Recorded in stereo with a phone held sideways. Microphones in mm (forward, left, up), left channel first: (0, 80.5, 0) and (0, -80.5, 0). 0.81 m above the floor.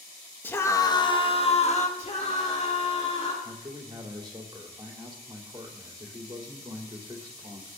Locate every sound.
0.4 s a scream: 10° left (ahead or behind), 1.2 m; by 1.9 s 45° left (ahead or behind), 1.5 m
2.0 s a scream: 45° left (ahead or behind), 2.5 m
3.4 s a man speaking: 30° right (ahead or behind), 2.5 m